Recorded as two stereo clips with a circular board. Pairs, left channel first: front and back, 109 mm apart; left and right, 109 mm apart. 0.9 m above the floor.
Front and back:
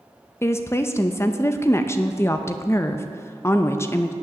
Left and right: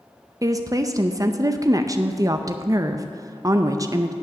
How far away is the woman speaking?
About 0.5 m.